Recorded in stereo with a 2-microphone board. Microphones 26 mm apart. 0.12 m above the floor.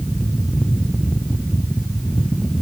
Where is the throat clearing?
No throat clearing in this recording.